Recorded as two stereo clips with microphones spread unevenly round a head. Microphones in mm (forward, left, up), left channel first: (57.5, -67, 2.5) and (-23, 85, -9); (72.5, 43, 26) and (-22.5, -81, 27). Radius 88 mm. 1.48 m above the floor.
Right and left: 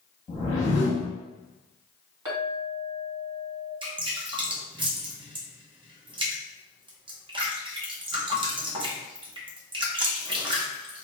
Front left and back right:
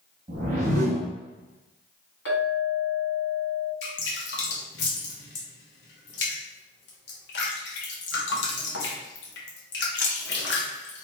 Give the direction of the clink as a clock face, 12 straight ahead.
10 o'clock.